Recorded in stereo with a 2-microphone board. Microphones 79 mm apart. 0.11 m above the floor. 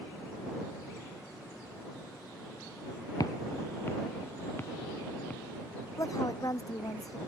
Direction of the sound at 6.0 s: 50° left (ahead or behind).